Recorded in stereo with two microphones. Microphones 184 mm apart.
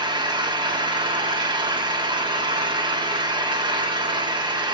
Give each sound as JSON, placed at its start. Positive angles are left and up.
{"t": 0.0, "sound": "an engine running", "side_deg": -25, "distance_m": 2.0}